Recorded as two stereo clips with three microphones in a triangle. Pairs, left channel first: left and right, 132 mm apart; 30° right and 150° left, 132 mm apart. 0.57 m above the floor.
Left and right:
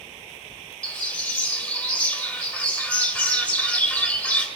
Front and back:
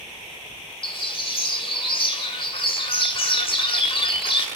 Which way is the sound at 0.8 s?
10° left.